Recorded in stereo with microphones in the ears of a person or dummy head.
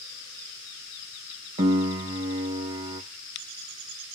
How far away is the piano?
About 0.6 m.